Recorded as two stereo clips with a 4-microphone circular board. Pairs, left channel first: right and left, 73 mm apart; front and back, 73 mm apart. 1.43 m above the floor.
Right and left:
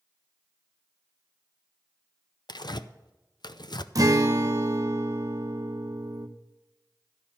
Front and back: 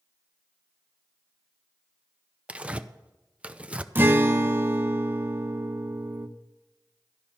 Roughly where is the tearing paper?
Right.